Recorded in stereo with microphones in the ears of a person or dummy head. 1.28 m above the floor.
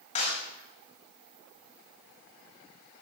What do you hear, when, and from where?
0.1 s a clap: 35° left (ahead or behind), 5.5 m